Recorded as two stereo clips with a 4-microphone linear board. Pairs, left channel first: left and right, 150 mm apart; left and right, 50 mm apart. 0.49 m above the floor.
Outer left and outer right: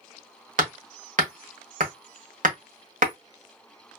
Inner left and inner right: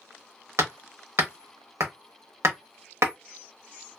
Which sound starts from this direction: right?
Hammering, at 0.6 s.